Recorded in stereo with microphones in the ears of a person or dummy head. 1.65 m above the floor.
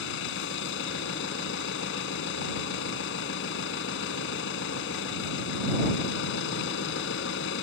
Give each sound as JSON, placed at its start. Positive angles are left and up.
{"t": 0.0, "sound": "an engine running", "side_deg": 75}